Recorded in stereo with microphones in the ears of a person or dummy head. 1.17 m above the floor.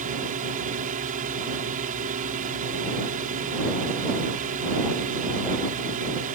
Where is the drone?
40° right (ahead or behind).